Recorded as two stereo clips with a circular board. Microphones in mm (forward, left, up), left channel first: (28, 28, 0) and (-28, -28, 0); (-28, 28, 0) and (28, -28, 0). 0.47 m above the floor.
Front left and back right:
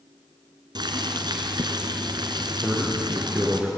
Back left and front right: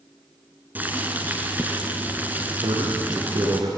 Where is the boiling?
110° right, 2.5 m.